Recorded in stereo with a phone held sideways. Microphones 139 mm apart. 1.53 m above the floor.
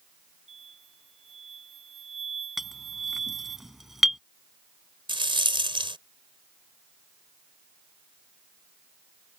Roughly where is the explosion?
Right.